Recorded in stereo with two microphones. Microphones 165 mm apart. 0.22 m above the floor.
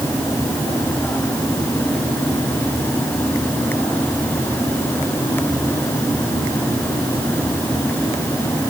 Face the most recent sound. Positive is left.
No sound to turn to.